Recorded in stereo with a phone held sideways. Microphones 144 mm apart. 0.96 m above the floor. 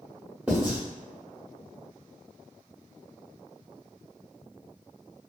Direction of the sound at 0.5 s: 5° right (ahead or behind).